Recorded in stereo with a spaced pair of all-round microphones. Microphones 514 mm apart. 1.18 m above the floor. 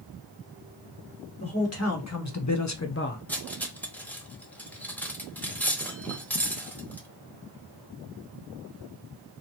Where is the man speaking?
30° left (ahead or behind), 1.7 m; by 3.2 s 15° left (ahead or behind), 0.5 m.